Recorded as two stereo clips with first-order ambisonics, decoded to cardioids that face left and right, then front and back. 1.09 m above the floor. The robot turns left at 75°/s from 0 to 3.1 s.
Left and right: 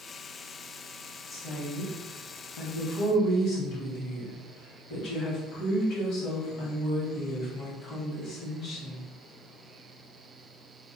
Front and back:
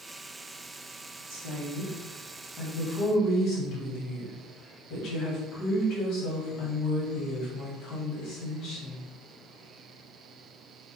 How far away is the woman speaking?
About 1.0 m.